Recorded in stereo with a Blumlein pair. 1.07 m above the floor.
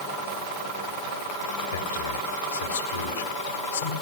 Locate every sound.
1.7 s a man speaking: 70° left, 3.5 m